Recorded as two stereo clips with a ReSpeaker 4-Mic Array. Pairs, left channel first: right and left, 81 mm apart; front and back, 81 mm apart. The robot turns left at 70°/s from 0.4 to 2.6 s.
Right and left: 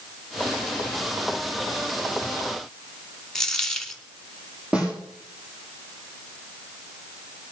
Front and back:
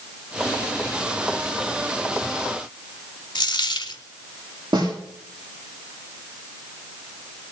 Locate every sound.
3.4 s a dropped coin: 10° right, 1.0 m
4.7 s a snare drum: 165° left, 7 m